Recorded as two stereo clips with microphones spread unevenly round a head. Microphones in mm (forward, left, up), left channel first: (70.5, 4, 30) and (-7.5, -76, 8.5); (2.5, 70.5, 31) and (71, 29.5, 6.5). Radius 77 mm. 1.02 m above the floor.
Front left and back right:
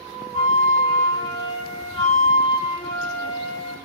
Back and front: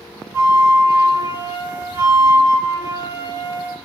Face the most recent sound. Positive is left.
turn(degrees=40)